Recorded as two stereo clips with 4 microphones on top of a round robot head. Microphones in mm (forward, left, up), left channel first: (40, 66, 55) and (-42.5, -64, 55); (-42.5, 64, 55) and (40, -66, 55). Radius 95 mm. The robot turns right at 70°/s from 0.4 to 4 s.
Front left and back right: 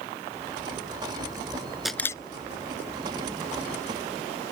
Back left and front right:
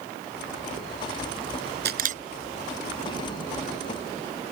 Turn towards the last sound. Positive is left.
turn(degrees=115)